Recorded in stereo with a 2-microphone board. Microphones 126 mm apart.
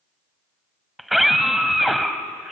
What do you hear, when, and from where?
1.0 s a scream: centre (ahead or behind), 1.4 m